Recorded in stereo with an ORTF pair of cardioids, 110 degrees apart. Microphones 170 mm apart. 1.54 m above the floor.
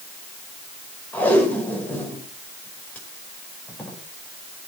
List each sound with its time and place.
1.1 s tape being pulled: 10° left, 5.5 m